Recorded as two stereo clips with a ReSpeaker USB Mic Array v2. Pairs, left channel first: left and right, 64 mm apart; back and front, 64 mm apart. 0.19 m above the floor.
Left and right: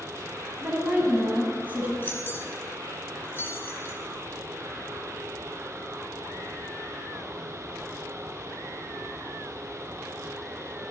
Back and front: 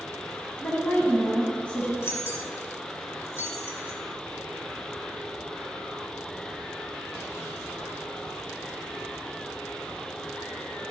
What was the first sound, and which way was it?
A woman speaking, 125° right.